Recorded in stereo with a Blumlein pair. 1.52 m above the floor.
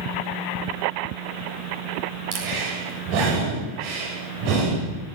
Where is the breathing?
45° right, 7 m.